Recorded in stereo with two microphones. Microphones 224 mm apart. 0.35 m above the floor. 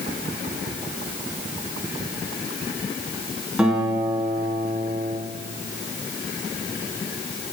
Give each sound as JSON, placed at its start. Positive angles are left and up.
{"t": 3.6, "sound": "a guitar", "side_deg": -5, "distance_m": 2.5}